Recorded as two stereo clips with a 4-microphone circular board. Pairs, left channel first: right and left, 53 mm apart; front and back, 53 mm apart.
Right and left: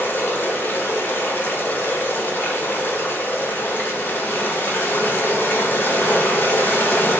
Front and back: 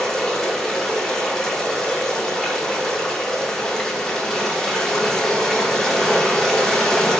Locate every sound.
0.0 s running water: 75° right, 0.8 m